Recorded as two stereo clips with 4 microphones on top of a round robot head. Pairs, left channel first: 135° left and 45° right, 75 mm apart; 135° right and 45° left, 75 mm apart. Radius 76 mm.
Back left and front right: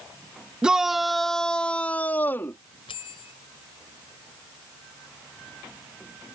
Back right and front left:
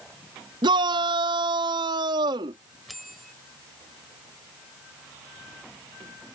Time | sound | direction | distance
0.6 | a shout | 35° left | ?
2.9 | a bell | 135° left | ?